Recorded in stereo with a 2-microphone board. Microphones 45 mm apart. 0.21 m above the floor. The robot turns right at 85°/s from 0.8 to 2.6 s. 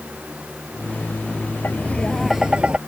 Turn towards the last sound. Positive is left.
turn(degrees=-150)